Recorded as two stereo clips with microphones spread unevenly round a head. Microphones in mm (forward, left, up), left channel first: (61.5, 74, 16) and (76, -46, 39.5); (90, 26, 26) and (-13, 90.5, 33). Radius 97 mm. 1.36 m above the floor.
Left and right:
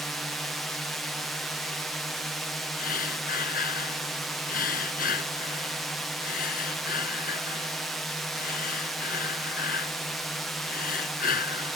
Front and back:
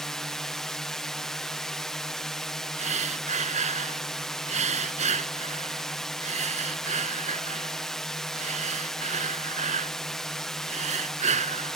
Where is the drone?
40° left.